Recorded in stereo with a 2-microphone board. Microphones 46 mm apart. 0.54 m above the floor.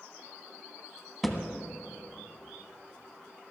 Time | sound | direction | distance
1.2 | a thud | centre (ahead or behind) | 1.2 m